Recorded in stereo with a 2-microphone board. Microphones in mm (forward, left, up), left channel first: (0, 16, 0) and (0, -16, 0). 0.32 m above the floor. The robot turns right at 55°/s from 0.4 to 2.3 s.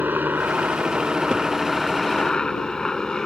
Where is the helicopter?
65° right (ahead or behind); by 3.3 s 20° left (ahead or behind).